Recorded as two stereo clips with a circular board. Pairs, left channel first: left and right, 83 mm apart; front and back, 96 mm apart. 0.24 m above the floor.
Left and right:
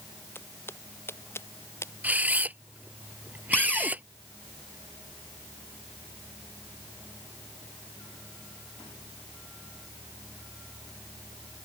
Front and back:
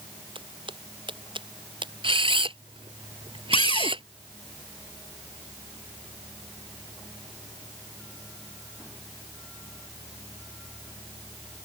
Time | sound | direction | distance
0.3 | footsteps | 150° left | ?
2.0 | a camera shutter | 160° right | ?
3.5 | a cupboard door | 15° left | ?